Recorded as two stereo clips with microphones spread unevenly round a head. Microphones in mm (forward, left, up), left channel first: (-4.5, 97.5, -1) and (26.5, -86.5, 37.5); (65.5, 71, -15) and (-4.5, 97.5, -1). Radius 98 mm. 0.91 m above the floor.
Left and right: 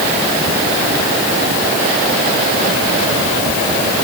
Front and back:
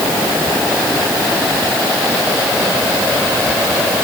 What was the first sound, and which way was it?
Only background noise.